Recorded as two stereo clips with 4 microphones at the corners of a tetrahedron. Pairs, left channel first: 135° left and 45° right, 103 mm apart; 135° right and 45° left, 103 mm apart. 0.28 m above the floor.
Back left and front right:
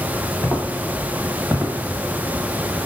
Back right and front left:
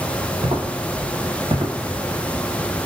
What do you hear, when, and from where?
0.4 s footsteps: 55° left, 1.2 m; by 2.9 s 20° right, 1.0 m